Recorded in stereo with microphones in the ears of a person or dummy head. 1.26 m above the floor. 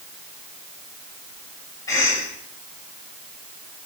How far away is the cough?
About 7 m.